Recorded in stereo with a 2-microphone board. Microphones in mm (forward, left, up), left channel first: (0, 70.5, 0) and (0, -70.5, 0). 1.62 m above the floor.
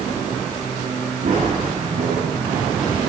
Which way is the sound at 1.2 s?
75° right (ahead or behind).